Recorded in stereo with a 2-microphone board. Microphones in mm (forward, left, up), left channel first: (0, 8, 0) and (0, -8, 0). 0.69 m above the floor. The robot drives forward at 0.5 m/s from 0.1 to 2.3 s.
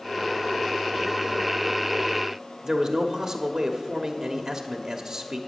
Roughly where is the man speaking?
Right.